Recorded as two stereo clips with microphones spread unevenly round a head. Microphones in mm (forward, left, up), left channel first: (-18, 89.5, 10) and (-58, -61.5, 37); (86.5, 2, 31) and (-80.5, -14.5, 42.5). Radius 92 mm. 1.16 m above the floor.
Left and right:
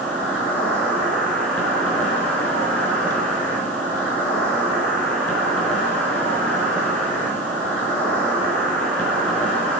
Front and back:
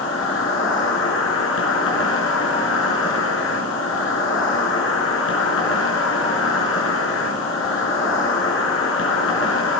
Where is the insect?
10° right, 3.5 m.